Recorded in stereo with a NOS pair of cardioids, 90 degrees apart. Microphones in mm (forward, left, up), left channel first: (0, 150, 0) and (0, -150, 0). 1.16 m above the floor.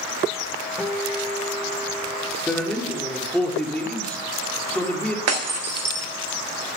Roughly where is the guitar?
Ahead.